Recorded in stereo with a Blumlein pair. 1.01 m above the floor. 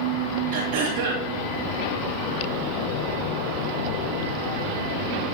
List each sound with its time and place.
0.5 s throat clearing: 55° right, 7 m